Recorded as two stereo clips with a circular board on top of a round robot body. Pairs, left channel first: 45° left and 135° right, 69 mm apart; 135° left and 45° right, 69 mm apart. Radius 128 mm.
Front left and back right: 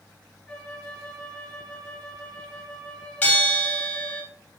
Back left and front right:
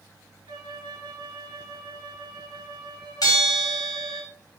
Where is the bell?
110° left, 3 m.